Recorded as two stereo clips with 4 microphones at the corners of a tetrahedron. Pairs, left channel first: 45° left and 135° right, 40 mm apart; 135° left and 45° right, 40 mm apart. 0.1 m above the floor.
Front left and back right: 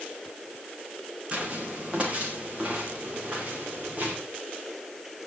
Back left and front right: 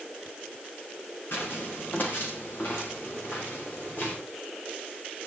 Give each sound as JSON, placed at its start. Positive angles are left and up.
{"t": 1.3, "sound": "footsteps", "azimuth_deg": 165, "distance_m": 8.0}